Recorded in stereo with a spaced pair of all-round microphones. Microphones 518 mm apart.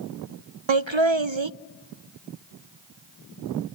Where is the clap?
No clap in this recording.